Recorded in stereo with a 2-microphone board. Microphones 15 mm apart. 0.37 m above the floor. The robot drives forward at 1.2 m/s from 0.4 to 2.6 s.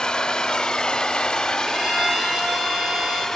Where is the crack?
I don't hear a crack.